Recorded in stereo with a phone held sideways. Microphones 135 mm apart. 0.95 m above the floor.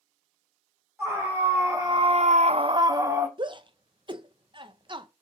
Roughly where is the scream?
Centre.